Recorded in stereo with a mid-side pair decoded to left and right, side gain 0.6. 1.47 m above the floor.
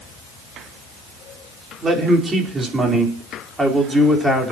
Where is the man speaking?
30° right, 5 m; by 4.5 s 5° right, 5 m.